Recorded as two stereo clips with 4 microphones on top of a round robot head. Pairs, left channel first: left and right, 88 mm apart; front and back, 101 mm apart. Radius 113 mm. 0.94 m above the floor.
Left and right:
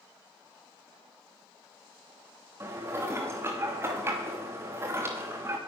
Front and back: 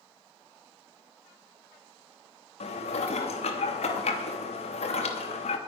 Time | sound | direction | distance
2.6 | dishes clattering | 25° right | 1.0 m